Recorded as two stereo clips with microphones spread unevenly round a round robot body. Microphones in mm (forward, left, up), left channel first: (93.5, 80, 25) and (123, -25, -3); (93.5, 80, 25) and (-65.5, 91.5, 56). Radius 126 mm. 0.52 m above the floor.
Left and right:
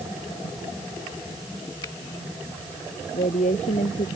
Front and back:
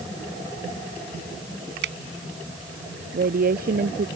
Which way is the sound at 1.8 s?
Straight behind.